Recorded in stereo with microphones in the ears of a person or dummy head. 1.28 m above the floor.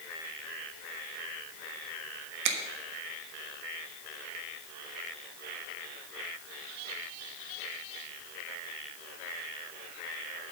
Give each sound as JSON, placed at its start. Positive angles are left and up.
{"t": 2.5, "sound": "a finger snap", "side_deg": -70, "distance_m": 1.2}